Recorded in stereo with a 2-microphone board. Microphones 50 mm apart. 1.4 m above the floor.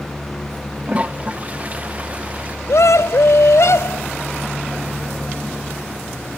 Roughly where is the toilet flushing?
Right.